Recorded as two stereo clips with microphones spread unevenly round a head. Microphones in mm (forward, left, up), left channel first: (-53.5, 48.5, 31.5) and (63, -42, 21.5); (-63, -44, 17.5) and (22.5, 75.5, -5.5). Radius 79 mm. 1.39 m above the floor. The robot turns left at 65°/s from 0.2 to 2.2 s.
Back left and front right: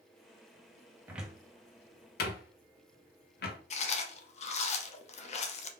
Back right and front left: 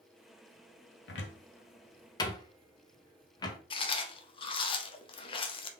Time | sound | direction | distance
1.1 | a cupboard door | 115° right | 0.6 m
3.7 | chewing | straight behind | 0.5 m